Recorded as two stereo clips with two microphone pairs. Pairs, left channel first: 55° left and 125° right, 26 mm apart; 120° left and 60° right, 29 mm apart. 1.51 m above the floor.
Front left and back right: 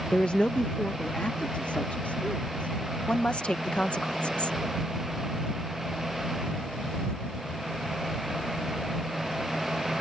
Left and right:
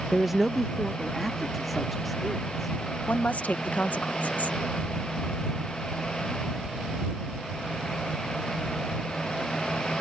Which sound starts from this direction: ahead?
A man speaking, at 0.1 s.